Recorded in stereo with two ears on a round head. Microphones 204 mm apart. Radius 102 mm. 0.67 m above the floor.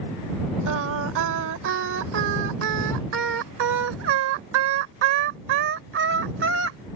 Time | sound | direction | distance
0.7 | singing | 55° right (ahead or behind) | ?